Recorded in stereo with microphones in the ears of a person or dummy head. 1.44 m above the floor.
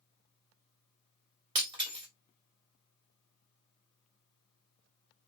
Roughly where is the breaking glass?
Right.